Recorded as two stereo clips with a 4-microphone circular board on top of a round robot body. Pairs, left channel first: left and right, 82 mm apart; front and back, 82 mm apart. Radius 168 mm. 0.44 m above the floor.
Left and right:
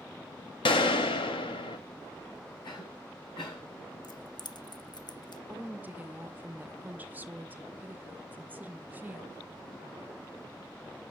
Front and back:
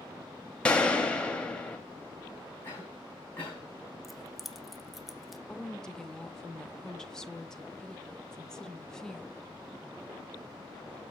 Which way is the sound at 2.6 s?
65° left.